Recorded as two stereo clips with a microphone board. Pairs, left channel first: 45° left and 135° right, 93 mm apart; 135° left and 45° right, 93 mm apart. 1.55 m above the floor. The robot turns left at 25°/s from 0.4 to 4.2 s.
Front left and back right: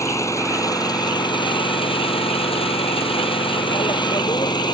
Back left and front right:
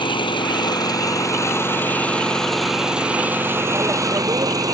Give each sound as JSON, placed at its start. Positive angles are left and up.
{"t": 0.0, "sound": "an engine running", "azimuth_deg": 100}